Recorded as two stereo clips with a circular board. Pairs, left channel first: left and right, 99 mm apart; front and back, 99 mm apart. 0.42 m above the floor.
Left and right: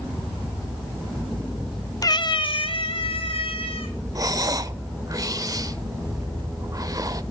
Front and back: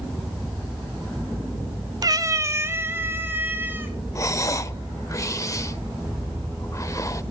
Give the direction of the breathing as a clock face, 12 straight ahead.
2 o'clock.